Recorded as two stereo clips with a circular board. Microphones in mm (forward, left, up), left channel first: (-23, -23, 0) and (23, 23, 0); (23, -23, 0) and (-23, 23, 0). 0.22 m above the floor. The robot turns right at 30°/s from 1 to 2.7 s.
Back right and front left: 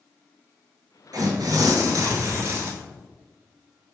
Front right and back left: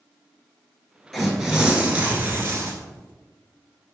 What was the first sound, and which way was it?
Tearing paper, 40° left.